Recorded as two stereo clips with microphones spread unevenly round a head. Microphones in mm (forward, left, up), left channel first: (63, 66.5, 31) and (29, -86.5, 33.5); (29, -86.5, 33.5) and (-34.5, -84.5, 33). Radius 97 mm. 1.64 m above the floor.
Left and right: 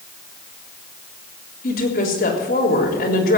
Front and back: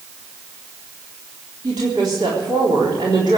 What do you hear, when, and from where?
1.6 s a woman speaking: 125° left, 3.5 m